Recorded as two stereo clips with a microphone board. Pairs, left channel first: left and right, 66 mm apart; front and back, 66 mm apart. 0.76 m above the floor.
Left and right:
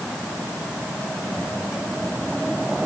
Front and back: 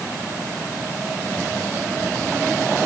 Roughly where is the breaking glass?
I don't hear breaking glass.